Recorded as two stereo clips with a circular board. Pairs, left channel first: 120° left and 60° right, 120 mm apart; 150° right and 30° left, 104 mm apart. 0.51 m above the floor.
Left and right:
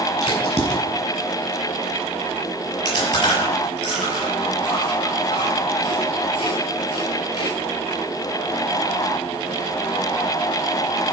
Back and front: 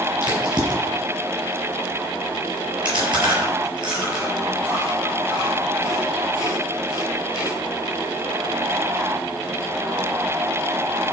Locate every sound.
0.2 s a crack: 80° left, 5.5 m
2.9 s chewing: 75° left, 6 m